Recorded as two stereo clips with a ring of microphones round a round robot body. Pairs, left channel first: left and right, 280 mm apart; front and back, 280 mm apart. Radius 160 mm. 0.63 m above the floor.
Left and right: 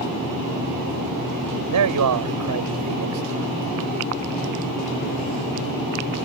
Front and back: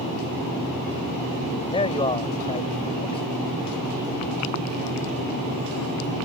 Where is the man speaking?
75° right.